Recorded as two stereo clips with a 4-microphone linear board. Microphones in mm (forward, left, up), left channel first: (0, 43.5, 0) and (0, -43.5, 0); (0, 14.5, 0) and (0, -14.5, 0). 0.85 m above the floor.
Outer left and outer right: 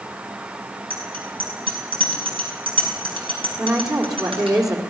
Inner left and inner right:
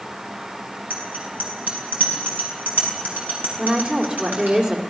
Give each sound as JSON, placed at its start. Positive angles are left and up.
{"t": 0.9, "sound": "a bicycle bell", "side_deg": -90, "distance_m": 6.0}
{"t": 3.6, "sound": "a woman speaking", "side_deg": -40, "distance_m": 3.0}